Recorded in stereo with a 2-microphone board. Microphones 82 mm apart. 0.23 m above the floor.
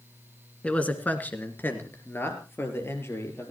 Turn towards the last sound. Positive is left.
turn(degrees=35)  # may be behind; listen again after turning